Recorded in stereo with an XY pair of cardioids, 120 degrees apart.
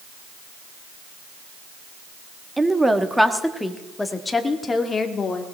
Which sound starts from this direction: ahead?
A woman speaking, at 2.6 s.